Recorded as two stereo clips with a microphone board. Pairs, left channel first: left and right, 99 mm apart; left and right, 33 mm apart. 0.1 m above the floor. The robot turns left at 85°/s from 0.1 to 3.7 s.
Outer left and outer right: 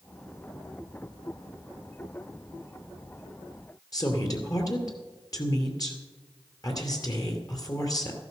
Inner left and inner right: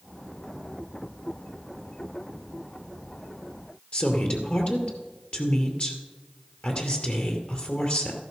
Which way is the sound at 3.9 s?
40° left (ahead or behind).